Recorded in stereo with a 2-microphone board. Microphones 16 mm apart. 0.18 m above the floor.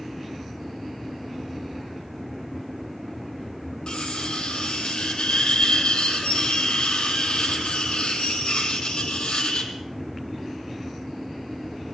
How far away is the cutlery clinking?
About 3.5 m.